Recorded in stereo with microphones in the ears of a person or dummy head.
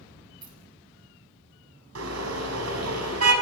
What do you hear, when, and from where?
0.4 s keys jangling: 30° right (ahead or behind), 6 m
1.9 s a car horn: 80° right, 6 m